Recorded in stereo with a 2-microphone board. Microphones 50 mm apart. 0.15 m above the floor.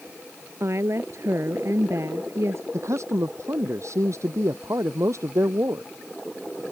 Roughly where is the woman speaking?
Right.